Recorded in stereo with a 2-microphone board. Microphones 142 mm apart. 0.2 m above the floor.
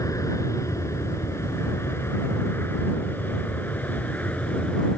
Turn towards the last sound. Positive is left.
turn(degrees=10)  # may be behind; listen again after turning